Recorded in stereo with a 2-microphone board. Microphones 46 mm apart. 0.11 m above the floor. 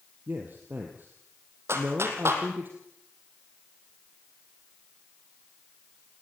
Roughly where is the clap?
Right.